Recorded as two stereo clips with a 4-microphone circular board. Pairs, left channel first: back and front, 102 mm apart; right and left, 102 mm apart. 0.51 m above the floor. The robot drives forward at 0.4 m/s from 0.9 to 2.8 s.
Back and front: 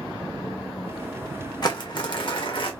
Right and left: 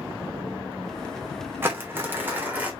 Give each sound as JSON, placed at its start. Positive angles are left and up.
{"t": 1.6, "sound": "crumpling", "azimuth_deg": 150, "distance_m": 1.1}